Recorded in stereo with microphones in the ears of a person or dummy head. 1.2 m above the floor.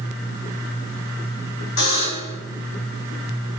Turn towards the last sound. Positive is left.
turn(degrees=55)  # may be behind; listen again after turning